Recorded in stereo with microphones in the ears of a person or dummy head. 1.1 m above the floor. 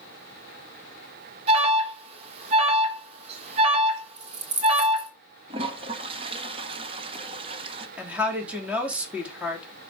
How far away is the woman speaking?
About 2.5 m.